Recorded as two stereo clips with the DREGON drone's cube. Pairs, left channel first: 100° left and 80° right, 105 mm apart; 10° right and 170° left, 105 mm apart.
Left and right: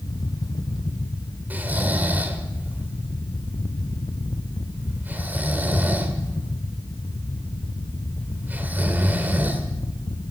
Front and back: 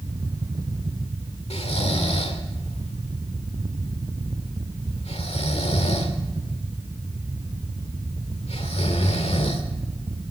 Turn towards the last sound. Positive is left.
turn(degrees=-5)